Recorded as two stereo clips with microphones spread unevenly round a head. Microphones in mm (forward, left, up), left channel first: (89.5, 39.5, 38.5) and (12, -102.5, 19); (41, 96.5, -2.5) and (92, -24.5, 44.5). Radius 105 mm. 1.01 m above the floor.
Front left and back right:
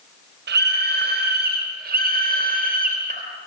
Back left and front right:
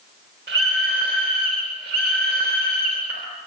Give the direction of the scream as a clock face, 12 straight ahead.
4 o'clock.